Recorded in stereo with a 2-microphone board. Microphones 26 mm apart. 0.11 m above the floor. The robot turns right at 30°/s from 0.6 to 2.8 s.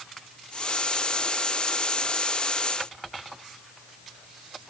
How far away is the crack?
No crack in this recording.